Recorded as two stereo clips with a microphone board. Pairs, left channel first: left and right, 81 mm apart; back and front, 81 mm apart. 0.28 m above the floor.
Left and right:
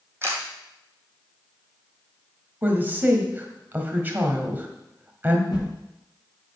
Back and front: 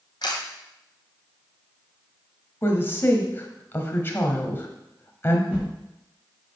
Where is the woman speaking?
140° right, 1.3 m.